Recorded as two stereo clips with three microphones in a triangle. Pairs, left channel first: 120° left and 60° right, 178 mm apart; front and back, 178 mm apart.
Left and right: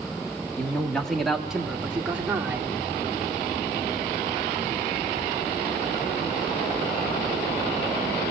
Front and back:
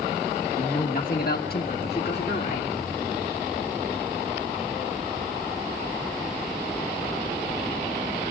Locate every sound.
0.6 s a man speaking: 40° left, 1.4 m; by 2.7 s 15° left, 2 m